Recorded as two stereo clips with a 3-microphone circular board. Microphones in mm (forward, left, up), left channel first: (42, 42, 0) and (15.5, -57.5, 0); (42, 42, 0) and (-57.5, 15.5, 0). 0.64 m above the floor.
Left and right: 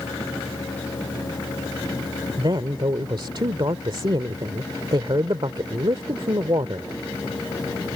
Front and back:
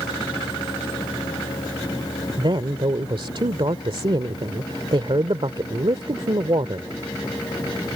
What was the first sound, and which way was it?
A man speaking, 140° right.